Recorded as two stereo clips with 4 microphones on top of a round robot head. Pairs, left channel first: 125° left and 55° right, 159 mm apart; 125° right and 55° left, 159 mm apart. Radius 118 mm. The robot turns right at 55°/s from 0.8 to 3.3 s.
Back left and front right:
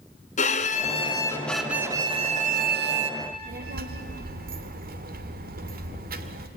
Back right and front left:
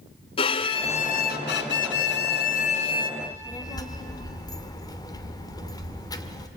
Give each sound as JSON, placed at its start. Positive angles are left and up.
{"t": 0.4, "sound": "a violin", "azimuth_deg": 175, "distance_m": 1.2}
{"t": 3.2, "sound": "a child speaking", "azimuth_deg": -70, "distance_m": 1.8}